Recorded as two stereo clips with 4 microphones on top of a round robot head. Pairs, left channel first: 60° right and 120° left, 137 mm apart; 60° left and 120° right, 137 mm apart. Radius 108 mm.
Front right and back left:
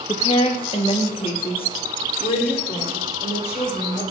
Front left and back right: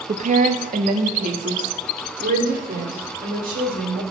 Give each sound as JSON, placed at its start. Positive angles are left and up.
{"t": 0.1, "sound": "a woman speaking", "azimuth_deg": -105, "distance_m": 0.9}